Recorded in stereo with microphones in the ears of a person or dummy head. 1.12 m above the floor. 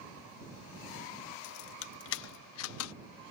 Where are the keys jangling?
60° left (ahead or behind); by 2.9 s 85° left.